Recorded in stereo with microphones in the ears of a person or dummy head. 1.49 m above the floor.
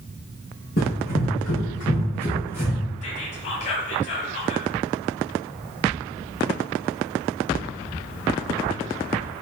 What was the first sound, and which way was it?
Running footsteps, 40° left (ahead or behind).